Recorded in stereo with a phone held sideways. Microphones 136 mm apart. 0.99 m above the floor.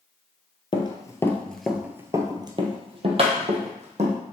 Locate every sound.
0.7 s running footsteps: 35° left (ahead or behind), 1.2 m; by 4.2 s 55° right (ahead or behind), 2.5 m